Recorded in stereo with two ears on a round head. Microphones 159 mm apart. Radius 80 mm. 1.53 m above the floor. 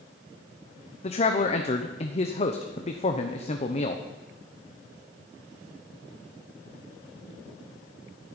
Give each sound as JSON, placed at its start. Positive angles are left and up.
{"t": 1.0, "sound": "a man speaking", "side_deg": 35, "distance_m": 1.0}